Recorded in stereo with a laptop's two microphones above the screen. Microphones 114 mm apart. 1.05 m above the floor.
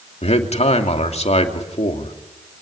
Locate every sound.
0.2 s a man speaking: 70° left (ahead or behind), 2.5 m